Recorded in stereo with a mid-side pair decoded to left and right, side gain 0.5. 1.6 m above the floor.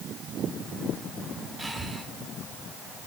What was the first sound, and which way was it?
Breathing, 15° right.